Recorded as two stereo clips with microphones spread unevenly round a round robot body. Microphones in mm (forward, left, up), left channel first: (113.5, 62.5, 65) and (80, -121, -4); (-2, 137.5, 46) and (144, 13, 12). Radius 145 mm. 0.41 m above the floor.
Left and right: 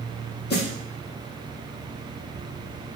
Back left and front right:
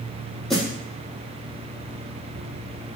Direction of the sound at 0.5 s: 50° left.